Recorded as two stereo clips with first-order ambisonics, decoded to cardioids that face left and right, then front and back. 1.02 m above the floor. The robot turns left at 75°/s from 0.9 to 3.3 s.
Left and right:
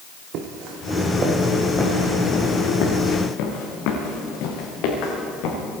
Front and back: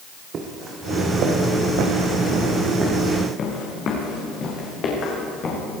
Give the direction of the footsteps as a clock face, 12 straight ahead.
4 o'clock.